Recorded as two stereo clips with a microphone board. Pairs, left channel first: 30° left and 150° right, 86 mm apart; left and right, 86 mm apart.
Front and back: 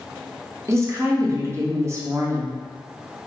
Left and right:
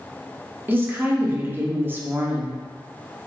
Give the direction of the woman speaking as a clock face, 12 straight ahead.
4 o'clock.